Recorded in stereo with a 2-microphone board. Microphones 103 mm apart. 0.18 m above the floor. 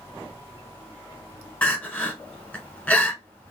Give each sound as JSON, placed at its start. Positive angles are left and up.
{"t": 1.6, "sound": "crying", "side_deg": 15, "distance_m": 0.6}